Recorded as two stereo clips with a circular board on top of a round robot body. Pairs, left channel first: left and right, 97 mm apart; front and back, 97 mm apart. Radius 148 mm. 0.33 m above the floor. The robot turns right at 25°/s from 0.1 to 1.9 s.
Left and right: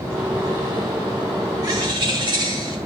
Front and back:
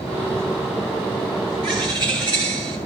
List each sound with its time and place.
1.6 s a bird: 140° right, 7 m; by 2.8 s 135° right, 7 m